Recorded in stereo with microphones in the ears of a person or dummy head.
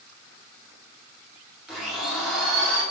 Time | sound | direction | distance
1.7 | a blender | centre (ahead or behind) | 3.5 m